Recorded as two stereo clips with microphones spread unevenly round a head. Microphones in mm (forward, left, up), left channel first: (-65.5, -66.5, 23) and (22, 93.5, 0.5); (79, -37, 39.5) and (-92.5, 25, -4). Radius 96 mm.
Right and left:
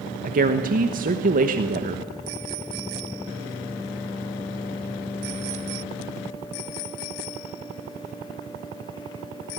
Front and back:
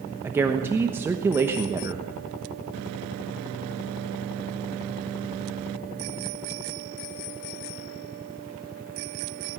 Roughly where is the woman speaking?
Left.